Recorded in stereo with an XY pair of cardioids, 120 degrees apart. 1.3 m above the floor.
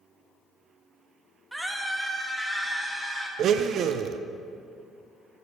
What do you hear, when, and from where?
1.5 s a scream: 10° right, 1.5 m; by 3.3 s 15° right, 2.5 m
3.4 s a blender: 60° right, 0.5 m